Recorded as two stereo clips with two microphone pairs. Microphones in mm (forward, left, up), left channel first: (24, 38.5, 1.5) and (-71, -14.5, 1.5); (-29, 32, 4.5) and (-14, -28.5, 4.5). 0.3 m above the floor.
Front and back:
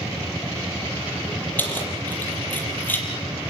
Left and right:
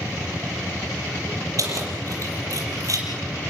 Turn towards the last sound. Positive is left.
turn(degrees=-45)